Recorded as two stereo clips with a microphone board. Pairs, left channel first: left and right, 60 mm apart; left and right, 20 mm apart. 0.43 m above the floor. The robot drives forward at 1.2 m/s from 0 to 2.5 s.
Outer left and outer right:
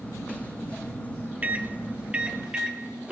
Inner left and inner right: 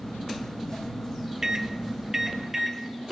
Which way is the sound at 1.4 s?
25° right (ahead or behind).